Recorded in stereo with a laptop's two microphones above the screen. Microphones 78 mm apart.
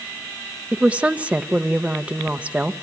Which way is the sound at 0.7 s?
15° right (ahead or behind).